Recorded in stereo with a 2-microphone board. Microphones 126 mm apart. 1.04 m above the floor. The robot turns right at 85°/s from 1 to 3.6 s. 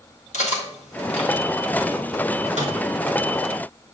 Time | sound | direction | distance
0.3 | cutlery clinking | 70° left (ahead or behind) | 1.4 m
2.6 | a microwave | 70° right (ahead or behind) | 2.5 m